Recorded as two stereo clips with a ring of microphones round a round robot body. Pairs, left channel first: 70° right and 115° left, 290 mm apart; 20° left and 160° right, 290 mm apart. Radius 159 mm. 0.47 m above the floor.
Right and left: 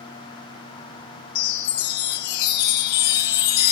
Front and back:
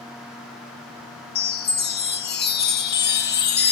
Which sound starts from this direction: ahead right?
A chime, at 1.4 s.